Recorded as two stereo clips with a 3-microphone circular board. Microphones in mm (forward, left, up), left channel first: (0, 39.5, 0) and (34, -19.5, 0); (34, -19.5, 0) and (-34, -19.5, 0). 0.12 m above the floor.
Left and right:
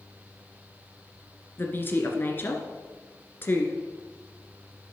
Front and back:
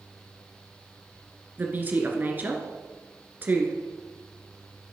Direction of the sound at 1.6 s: 145° left.